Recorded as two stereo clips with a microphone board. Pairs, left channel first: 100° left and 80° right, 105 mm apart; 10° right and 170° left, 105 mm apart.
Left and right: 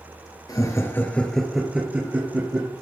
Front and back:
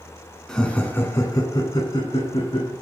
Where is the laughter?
70° left, 1.7 m; by 2.7 s 30° right, 2.5 m.